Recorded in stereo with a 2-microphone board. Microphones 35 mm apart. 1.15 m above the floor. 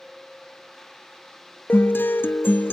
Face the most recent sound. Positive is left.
turn(degrees=60)  # may be behind; listen again after turning